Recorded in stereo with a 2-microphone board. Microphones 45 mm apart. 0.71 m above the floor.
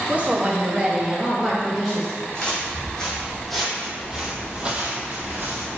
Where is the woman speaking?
30° right (ahead or behind), 0.7 m; by 2.2 s 10° left (ahead or behind), 0.9 m.